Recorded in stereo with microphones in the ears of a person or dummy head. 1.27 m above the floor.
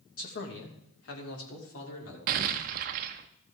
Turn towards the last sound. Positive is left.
turn(degrees=-55)  # may be behind; listen again after turning